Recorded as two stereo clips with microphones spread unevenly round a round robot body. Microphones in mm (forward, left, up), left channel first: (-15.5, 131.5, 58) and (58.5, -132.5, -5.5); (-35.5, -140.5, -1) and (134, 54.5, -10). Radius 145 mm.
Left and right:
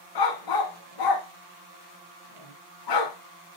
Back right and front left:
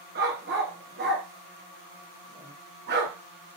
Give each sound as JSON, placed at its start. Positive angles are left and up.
{"t": 0.1, "sound": "a dog barking", "azimuth_deg": 105, "distance_m": 1.2}